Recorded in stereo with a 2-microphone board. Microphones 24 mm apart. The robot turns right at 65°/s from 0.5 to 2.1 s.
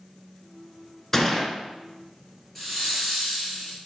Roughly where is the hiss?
Centre.